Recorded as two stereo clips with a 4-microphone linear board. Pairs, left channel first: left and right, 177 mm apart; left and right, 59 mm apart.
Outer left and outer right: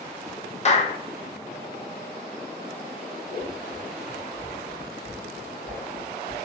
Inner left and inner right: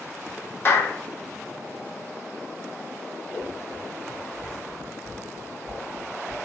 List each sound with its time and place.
0.7 s a clap: 40° left (ahead or behind), 0.5 m
3.3 s scissors: 5° left (ahead or behind), 1.8 m